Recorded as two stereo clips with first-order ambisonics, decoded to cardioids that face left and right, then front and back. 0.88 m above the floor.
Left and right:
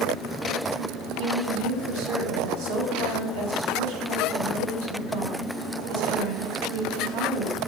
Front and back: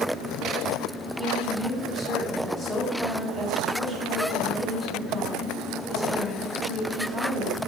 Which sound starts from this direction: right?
A woman speaking, at 1.2 s.